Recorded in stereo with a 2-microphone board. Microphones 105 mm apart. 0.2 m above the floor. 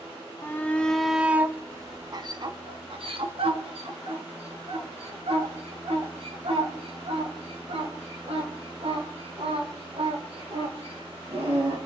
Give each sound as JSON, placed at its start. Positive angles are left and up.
{"t": 0.4, "sound": "a shout", "side_deg": 25, "distance_m": 1.0}